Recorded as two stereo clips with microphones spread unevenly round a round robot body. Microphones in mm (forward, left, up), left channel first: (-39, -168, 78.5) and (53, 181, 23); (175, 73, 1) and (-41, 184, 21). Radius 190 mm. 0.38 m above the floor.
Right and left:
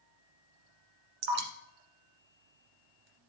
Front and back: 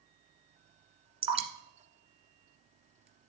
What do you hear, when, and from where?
1.2 s dripping: 85° left, 1.6 m